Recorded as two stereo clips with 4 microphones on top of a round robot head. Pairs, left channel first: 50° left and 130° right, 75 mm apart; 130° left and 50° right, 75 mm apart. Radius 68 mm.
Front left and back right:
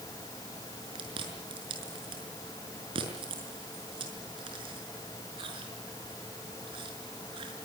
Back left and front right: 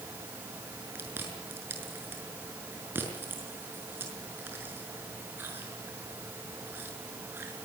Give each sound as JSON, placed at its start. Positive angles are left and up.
{"t": 0.9, "sound": "chewing", "azimuth_deg": -115, "distance_m": 5.5}